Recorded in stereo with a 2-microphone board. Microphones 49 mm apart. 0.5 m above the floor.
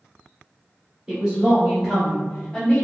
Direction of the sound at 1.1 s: 20° right (ahead or behind).